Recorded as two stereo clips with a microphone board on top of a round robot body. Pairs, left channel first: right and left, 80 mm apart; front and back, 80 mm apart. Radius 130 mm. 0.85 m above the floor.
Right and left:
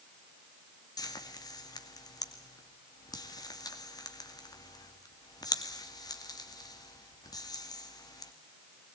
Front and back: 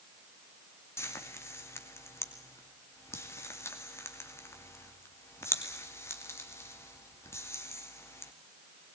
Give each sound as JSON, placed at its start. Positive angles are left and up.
{"t": 1.0, "sound": "frying", "azimuth_deg": -55, "distance_m": 2.5}